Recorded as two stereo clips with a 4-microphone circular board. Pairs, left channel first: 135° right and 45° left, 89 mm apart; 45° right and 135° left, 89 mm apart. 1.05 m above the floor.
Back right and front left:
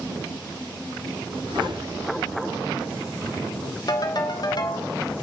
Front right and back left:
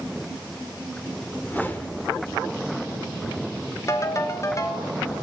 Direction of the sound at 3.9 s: 100° right.